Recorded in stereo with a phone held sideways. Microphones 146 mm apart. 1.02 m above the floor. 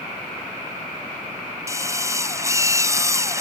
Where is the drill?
20° right (ahead or behind).